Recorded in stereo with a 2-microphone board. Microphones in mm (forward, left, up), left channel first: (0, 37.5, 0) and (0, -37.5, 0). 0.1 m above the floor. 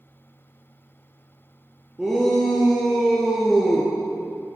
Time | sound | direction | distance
2.0 | a shout | 5° right (ahead or behind) | 2 m